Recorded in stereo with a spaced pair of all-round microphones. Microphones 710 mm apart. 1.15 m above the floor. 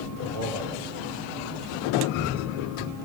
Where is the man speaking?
80° left, 4 m.